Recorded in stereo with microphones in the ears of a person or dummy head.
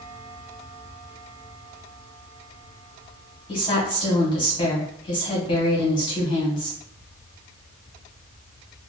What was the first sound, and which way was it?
A woman speaking, 30° left (ahead or behind).